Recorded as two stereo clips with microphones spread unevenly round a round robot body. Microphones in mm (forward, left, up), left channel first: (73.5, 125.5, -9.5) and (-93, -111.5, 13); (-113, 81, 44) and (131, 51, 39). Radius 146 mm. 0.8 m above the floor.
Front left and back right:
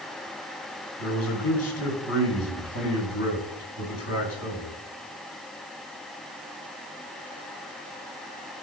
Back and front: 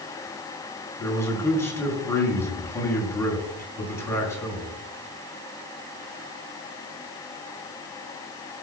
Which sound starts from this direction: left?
A man speaking, at 1.0 s.